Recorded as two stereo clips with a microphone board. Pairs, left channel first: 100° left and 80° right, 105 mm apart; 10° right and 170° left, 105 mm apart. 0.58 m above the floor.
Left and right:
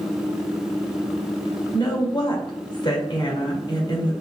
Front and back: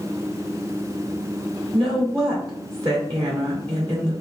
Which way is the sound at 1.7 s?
135° left.